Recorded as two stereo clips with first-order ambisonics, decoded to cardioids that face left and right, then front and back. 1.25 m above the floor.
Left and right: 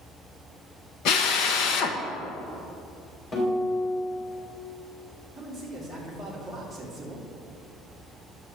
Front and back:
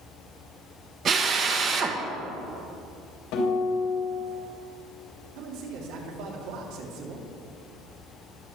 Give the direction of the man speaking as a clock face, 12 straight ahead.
6 o'clock.